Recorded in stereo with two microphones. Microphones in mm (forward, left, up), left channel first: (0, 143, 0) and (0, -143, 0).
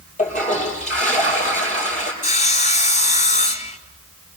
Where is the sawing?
25° left (ahead or behind), 2 m.